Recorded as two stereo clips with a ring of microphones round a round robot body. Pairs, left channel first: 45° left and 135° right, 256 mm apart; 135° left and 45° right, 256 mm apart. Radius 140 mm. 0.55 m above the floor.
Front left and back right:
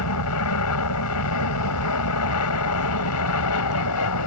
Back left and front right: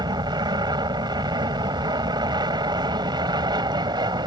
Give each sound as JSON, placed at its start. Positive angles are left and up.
{"t": 0.0, "sound": "an aircraft", "azimuth_deg": 30}